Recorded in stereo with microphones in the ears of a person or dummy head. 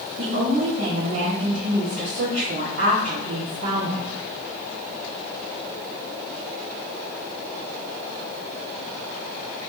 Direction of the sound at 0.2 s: 70° right (ahead or behind).